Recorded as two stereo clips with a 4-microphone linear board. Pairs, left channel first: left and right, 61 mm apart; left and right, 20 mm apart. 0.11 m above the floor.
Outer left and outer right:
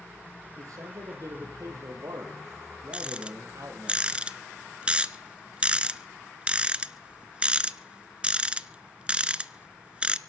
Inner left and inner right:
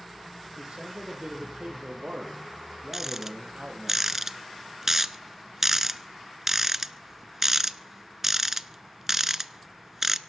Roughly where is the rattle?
Right.